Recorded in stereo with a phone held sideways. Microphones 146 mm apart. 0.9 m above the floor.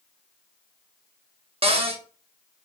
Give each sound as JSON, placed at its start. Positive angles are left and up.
{"t": 1.6, "sound": "a cupboard door", "side_deg": -40, "distance_m": 0.5}